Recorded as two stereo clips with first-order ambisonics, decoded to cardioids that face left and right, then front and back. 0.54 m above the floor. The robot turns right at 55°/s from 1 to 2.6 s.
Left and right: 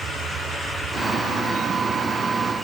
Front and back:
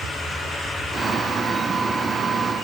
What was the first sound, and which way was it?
Only background noise.